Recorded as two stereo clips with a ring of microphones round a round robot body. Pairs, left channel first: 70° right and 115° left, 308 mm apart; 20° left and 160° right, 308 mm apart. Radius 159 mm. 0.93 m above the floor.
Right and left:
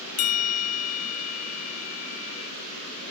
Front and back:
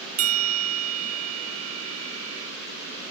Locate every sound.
0.2 s a bell: 110° right